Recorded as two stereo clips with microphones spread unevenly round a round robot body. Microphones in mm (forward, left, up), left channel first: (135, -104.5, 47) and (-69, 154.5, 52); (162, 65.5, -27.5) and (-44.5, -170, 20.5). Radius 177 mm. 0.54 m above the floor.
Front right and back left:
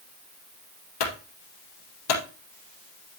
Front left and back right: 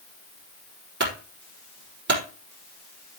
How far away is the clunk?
About 4 m.